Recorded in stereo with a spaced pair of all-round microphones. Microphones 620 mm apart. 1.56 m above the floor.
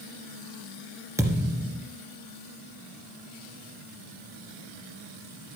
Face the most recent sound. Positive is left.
turn(degrees=-5)  # may be behind; listen again after turning